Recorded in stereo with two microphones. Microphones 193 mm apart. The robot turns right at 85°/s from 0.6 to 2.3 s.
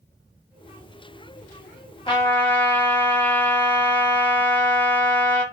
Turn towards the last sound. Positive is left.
turn(degrees=10)  # may be behind; listen again after turning